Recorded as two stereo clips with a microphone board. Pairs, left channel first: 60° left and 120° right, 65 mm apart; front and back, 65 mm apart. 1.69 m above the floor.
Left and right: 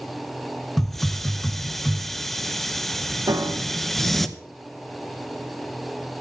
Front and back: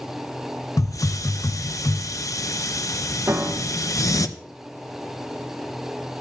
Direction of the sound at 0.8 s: 25° right.